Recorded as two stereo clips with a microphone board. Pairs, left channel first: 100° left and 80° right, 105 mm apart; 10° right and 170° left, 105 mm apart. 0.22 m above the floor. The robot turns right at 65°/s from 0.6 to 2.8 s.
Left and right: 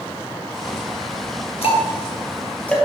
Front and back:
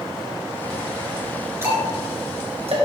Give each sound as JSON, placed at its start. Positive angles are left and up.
{"t": 1.6, "sound": "ticking", "azimuth_deg": 105, "distance_m": 2.0}